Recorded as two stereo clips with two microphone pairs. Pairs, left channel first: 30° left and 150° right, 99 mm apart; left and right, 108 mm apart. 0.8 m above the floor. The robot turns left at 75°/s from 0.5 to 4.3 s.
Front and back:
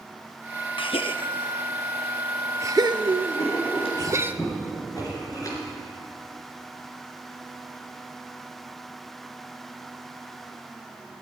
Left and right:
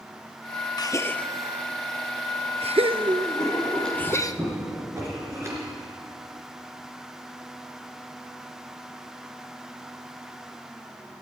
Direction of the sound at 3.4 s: 45° left.